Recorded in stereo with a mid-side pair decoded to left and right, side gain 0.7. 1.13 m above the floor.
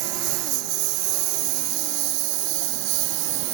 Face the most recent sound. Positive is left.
turn(degrees=-70)